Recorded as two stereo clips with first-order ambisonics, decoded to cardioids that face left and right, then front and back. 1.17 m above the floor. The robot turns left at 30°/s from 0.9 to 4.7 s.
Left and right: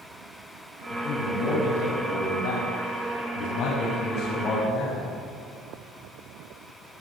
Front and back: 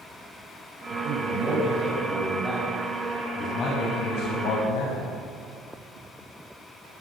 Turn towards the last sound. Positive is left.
turn(degrees=25)